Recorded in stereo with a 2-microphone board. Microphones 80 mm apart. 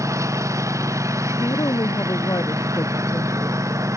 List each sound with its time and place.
0.0 s a lawn mower: 40° right (ahead or behind)
1.4 s a woman speaking: 50° left (ahead or behind)